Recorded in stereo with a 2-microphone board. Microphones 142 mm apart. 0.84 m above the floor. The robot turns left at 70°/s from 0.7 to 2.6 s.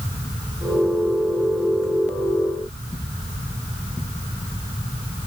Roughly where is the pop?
No pop in this recording.